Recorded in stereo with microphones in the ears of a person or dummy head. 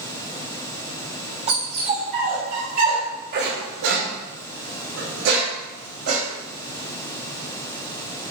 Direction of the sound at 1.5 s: 35° right (ahead or behind).